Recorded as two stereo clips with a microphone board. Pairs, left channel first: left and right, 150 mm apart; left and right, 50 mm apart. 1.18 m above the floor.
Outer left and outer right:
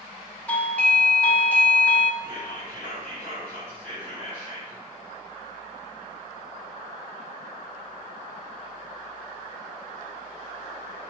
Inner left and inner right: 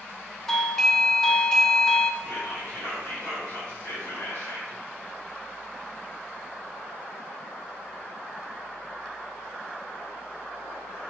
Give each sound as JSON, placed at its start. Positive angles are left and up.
{"t": 0.5, "sound": "a doorbell", "side_deg": 10, "distance_m": 0.6}
{"t": 2.2, "sound": "whispering", "side_deg": 60, "distance_m": 3.5}